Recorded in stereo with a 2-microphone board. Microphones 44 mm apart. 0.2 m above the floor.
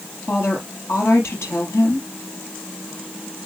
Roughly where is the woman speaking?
Left.